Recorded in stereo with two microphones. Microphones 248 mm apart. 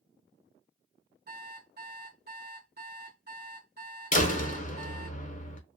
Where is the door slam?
30° left (ahead or behind), 0.6 m.